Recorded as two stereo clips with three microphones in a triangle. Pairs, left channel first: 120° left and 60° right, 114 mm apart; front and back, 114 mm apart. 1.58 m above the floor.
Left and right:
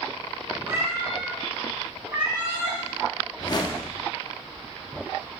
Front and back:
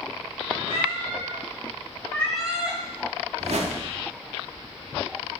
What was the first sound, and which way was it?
A cat meowing, 5° left.